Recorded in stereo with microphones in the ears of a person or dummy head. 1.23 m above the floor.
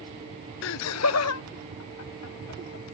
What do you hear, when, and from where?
0.6 s laughter: 55° left (ahead or behind); by 2.9 s 85° left